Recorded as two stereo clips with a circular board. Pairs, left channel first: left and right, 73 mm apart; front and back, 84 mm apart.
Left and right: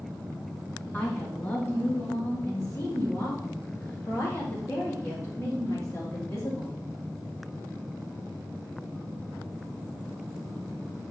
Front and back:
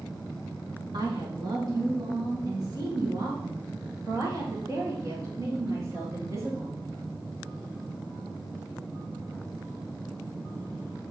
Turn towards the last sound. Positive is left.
turn(degrees=130)